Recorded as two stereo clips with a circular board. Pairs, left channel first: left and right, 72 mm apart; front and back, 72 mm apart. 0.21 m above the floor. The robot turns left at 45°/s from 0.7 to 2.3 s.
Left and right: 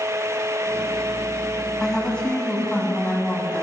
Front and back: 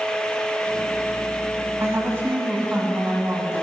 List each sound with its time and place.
1.8 s a woman speaking: 175° left, 1.9 m; by 3.6 s 150° left, 1.9 m